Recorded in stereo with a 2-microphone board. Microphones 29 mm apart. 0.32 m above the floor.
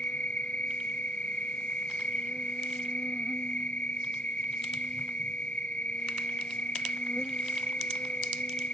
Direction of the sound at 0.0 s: 50° left (ahead or behind).